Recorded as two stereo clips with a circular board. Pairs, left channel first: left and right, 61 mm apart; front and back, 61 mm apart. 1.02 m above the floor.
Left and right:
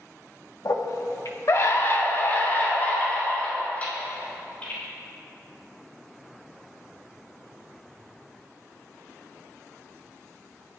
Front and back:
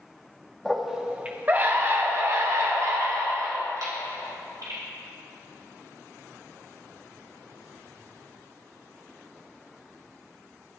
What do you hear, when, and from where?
0.7 s a scream: 85° left, 1.6 m; by 4.8 s 160° left, 6 m